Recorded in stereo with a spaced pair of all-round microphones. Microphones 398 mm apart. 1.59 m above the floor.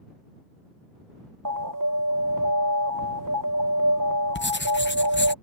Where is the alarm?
55° right (ahead or behind).